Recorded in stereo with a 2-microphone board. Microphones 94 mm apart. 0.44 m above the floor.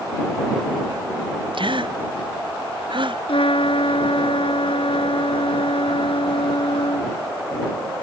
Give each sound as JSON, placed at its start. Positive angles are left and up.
{"t": 1.5, "sound": "a gasp", "side_deg": -60}
{"t": 3.3, "sound": "a trumpet", "side_deg": 80}